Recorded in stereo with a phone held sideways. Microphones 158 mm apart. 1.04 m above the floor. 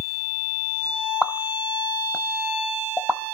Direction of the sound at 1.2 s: 5° right (ahead or behind).